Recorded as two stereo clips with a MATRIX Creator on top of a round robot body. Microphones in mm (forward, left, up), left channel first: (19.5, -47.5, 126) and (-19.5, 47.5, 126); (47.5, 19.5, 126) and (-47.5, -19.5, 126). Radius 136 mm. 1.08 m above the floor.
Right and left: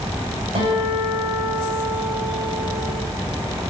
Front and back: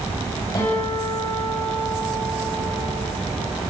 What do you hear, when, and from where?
0.6 s a guitar: 80° left, 9.5 m